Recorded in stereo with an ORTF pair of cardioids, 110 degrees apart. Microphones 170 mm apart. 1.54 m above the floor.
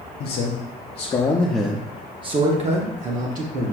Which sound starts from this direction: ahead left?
A man speaking, at 0.2 s.